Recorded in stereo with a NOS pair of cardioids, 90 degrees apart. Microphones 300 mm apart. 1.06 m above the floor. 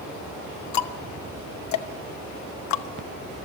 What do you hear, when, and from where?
0.7 s ticking: 70° left, 1.0 m